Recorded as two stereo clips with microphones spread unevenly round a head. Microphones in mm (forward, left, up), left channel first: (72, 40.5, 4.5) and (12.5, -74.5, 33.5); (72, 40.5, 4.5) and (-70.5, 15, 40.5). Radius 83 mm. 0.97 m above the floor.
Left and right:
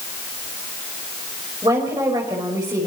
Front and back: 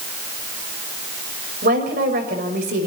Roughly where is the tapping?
I don't hear tapping.